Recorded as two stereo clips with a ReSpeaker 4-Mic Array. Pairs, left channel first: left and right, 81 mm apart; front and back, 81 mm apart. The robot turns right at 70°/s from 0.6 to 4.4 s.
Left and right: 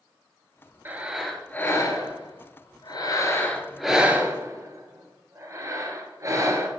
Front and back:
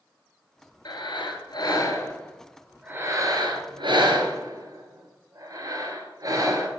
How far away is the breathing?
About 1.2 m.